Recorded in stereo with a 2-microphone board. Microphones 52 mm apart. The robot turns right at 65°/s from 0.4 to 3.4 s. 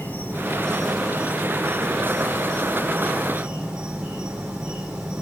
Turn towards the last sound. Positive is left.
turn(degrees=-20)